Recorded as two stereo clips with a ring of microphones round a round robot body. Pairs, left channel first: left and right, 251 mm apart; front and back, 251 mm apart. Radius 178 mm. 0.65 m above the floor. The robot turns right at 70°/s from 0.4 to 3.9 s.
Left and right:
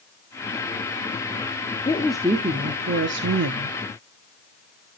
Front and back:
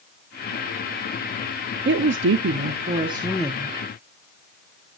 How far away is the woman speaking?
About 0.8 m.